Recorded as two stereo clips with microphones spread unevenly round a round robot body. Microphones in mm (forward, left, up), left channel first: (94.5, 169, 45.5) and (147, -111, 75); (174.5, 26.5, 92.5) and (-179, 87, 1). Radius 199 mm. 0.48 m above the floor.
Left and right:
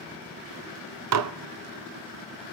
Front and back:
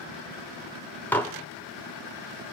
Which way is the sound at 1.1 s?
105° right.